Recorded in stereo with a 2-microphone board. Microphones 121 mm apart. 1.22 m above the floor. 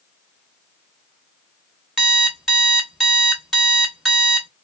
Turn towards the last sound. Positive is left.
turn(degrees=0)  # may be behind; listen again after turning